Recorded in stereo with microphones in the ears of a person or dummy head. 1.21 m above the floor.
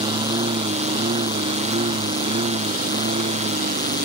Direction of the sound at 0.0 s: 25° right (ahead or behind).